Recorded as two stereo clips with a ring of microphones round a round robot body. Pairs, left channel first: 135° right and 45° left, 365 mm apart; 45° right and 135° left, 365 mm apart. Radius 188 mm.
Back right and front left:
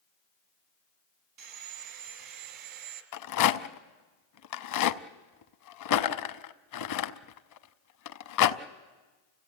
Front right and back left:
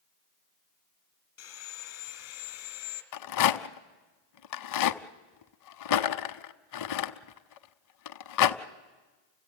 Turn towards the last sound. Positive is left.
turn(degrees=-90)